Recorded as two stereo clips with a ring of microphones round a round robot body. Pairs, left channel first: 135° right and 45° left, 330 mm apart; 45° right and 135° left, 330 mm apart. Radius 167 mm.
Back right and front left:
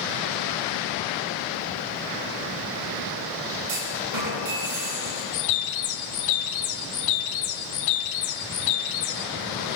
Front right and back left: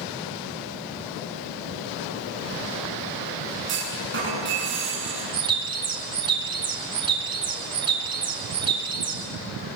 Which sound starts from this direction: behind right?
A bird, at 5.3 s.